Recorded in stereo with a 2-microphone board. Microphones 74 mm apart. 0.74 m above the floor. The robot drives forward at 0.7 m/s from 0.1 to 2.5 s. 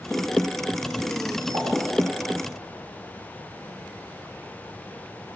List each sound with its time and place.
1.5 s a pop: 75° right (ahead or behind), 4 m